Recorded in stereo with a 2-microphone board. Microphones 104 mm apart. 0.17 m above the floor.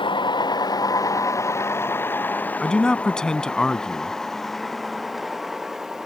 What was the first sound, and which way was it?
A vehicle, 50° left (ahead or behind).